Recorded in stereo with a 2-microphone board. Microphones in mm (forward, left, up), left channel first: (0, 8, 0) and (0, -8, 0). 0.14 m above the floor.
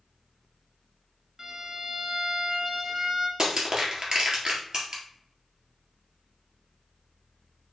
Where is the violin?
35° right (ahead or behind), 0.8 m.